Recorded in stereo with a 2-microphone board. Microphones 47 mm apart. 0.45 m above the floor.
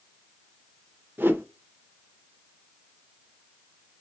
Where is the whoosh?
50° right (ahead or behind), 0.6 m.